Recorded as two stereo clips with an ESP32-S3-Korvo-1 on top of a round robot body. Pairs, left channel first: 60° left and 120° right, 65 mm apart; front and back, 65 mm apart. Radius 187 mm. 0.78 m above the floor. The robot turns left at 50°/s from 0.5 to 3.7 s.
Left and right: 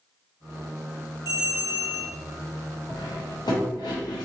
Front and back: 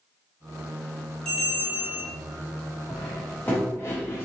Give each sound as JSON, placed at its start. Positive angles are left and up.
{"t": 1.2, "sound": "a bell", "azimuth_deg": -80, "distance_m": 0.9}
{"t": 2.9, "sound": "cutlery clinking", "azimuth_deg": 90, "distance_m": 0.7}